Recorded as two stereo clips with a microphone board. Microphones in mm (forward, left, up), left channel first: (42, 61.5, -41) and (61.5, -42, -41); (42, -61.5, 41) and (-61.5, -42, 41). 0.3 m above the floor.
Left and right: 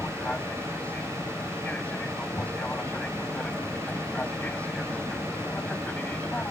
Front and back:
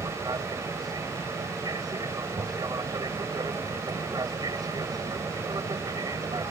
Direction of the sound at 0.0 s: 170° left.